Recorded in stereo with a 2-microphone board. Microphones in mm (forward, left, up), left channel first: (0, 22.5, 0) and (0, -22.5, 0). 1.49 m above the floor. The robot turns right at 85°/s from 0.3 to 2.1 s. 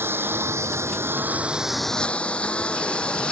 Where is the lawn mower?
60° right (ahead or behind); by 3.3 s 25° left (ahead or behind).